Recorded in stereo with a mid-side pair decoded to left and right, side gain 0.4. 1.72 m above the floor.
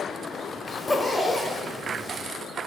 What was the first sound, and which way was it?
A zipper, 30° left.